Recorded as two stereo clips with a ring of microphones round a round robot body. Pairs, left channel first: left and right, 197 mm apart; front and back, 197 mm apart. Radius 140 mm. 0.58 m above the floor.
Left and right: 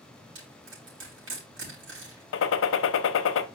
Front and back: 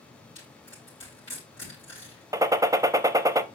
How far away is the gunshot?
About 0.6 m.